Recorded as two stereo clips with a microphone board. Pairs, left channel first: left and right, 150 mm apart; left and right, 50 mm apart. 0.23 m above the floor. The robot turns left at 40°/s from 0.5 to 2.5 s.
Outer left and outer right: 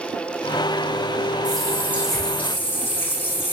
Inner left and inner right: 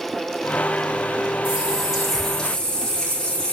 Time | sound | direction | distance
1.4 | a running tap | 150° right | 9.5 m